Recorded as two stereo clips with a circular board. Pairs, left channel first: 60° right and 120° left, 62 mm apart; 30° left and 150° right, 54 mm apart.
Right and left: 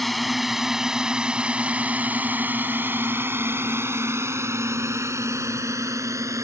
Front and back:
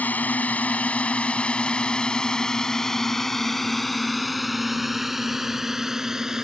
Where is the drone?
30° left; by 6.4 s 130° left.